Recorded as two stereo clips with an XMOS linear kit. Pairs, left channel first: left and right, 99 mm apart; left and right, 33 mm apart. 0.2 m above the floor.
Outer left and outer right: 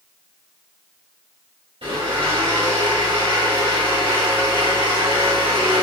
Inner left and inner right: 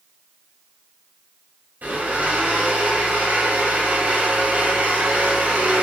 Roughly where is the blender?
Right.